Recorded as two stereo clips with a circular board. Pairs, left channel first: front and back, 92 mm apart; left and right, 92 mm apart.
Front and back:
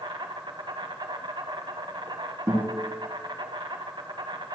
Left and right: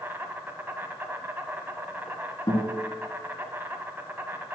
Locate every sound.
0.0 s an insect: 155° right, 1.5 m
2.5 s a guitar: 125° left, 3.5 m